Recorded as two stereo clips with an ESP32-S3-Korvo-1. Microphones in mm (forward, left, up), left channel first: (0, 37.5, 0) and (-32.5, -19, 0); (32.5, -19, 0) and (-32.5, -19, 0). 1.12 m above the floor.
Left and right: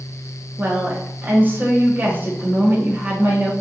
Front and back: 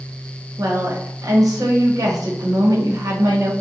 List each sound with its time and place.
0.6 s a woman speaking: straight behind, 1.0 m